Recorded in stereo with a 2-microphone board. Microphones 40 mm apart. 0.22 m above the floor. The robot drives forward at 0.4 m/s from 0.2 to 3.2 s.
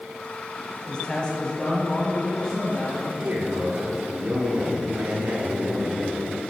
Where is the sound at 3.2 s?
35° right (ahead or behind), 2.5 m.